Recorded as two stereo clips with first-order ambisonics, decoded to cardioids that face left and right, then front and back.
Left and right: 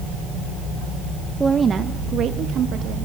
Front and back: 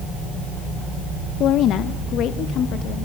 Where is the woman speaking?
15° right, 0.5 m; by 3.0 s 45° right, 1.3 m.